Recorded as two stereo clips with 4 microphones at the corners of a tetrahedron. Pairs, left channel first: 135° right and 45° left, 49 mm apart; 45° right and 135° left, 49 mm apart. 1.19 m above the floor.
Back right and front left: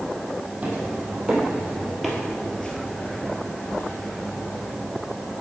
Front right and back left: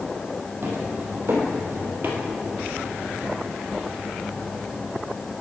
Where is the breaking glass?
No breaking glass in this recording.